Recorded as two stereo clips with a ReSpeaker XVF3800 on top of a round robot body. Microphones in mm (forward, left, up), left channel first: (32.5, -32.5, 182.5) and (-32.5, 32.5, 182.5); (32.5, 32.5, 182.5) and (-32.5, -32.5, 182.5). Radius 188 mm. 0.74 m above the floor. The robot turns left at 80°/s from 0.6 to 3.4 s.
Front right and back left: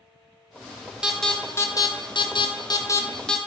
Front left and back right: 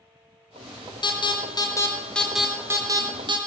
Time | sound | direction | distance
1.0 | an alarm | 55° left | 1.0 m